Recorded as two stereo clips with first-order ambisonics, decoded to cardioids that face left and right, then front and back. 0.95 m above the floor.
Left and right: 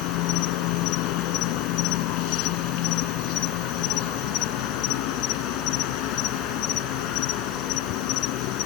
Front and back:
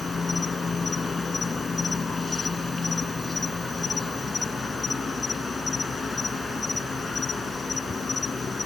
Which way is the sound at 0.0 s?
75° left.